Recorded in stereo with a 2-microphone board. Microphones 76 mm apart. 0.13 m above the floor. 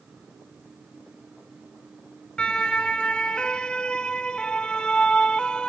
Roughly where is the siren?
Centre.